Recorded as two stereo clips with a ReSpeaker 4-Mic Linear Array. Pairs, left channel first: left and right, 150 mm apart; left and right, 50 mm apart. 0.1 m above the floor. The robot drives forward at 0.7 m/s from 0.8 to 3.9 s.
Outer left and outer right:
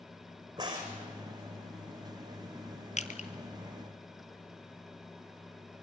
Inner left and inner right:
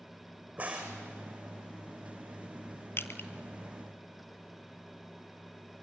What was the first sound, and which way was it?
A crack, 25° right (ahead or behind).